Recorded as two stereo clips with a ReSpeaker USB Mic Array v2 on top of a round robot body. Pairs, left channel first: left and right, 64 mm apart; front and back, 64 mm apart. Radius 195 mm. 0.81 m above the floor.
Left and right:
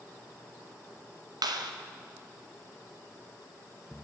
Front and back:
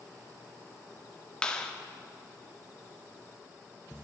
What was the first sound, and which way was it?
A clap, 75° right.